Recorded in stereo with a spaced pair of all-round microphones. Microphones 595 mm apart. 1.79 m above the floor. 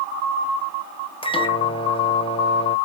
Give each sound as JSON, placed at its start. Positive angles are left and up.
{"t": 1.2, "sound": "a microwave", "side_deg": 10, "distance_m": 0.7}